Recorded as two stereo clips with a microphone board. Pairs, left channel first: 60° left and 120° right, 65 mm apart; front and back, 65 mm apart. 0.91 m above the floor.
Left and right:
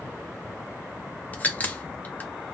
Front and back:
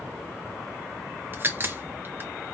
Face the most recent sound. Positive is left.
turn(degrees=125)